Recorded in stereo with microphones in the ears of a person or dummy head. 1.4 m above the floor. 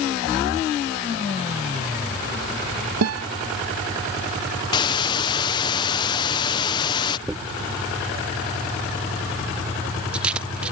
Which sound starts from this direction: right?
A guitar, at 3.0 s.